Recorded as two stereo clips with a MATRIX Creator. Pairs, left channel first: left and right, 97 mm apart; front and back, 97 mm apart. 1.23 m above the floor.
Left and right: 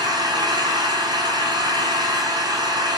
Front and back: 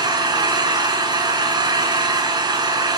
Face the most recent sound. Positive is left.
turn(degrees=-135)